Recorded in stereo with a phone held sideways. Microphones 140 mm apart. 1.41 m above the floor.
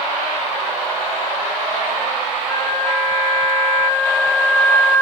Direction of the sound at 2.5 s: 60° right (ahead or behind).